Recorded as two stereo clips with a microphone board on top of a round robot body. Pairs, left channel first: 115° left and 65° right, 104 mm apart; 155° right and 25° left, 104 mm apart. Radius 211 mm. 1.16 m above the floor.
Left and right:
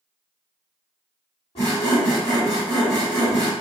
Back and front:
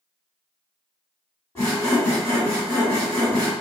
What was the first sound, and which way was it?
Sawing, 135° left.